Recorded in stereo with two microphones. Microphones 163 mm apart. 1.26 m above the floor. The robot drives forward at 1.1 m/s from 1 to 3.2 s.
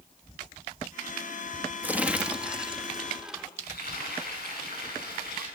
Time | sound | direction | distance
1.8 | crumpling | 10° right (ahead or behind) | 0.9 m
3.6 | frying | 75° left (ahead or behind) | 9 m